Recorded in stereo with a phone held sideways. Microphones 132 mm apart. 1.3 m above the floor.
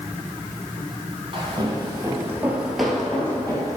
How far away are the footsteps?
About 1.7 m.